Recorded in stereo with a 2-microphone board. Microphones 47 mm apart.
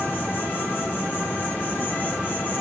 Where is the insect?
45° left (ahead or behind), 2.0 m.